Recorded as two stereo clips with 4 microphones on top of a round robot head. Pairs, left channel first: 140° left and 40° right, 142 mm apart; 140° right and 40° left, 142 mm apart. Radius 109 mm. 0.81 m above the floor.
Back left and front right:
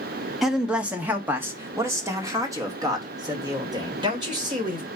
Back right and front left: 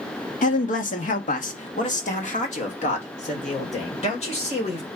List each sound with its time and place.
0.4 s a man speaking: 125° right, 1.6 m; by 4.9 s 100° right, 4.5 m